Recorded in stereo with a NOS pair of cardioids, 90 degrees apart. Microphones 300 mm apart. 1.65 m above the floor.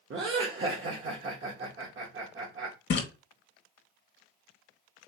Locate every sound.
0.1 s laughter: 45° right, 1.2 m
2.9 s a splash: 40° left, 1.1 m